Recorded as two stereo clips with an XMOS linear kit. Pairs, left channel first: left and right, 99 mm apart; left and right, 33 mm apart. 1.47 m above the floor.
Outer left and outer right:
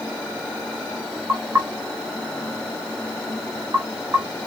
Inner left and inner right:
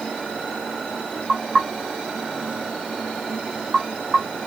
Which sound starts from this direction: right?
Knocking, at 1.3 s.